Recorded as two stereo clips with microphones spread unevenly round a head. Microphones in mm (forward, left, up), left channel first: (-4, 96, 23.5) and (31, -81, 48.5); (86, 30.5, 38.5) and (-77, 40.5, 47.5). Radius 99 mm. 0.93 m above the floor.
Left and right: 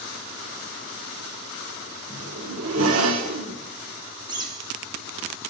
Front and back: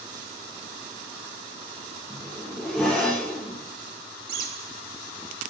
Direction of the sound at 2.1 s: 90° right.